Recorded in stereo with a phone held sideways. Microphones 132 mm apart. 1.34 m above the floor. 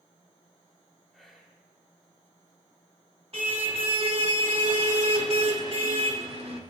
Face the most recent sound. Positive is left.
turn(degrees=-50)  # may be behind; listen again after turning